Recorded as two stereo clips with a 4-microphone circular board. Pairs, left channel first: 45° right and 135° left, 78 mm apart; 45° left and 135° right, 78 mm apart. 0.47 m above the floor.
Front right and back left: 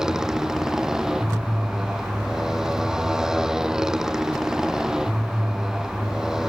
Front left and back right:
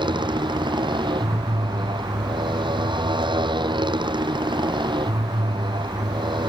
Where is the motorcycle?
145° right.